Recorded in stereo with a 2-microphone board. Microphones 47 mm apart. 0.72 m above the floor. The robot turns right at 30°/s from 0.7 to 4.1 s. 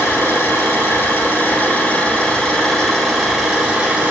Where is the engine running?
110° left, 5.5 m; by 4.1 s 150° right, 5.5 m.